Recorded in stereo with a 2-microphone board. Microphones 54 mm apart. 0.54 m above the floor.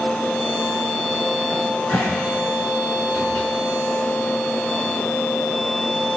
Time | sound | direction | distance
1.5 | a cupboard door | 30° left (ahead or behind) | 5.5 m